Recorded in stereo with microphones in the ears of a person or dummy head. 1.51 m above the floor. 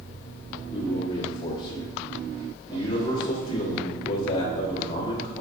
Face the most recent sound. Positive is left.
turn(degrees=25)  # may be behind; listen again after turning